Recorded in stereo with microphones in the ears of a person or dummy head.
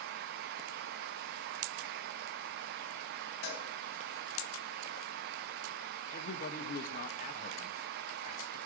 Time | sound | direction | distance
3.4 | a cowbell | 65° left (ahead or behind) | 4 m
6.1 | a man speaking | 50° left (ahead or behind) | 1.3 m